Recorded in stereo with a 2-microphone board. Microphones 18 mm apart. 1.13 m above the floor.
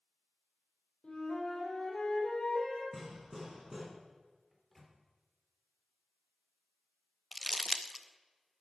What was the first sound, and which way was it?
A flute, 55° left (ahead or behind).